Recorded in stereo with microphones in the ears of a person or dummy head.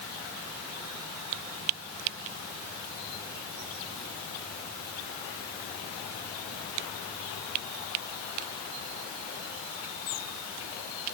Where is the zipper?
I don't hear a zipper.